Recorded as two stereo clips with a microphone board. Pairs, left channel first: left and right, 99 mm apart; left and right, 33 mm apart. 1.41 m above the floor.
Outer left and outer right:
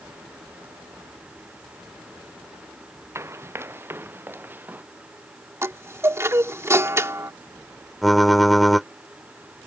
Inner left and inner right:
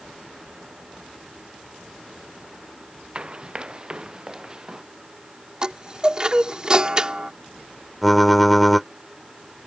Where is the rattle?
No rattle in this recording.